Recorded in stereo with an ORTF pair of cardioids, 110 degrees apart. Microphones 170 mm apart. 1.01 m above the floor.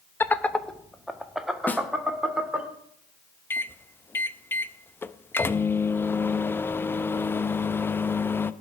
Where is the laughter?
15° left, 0.9 m; by 2.7 s 5° right, 3 m.